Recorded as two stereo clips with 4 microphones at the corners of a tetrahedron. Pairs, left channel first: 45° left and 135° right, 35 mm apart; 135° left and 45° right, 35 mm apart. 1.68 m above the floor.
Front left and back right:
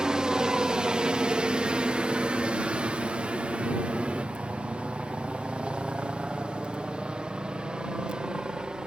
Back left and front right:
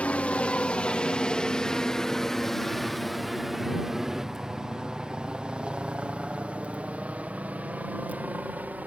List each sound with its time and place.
0.0 s a helicopter: 160° left; by 8.9 s 75° right